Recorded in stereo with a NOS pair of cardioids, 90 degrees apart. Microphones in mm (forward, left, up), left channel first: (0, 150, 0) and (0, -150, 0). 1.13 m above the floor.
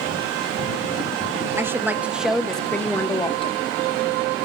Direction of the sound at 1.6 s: 10° right.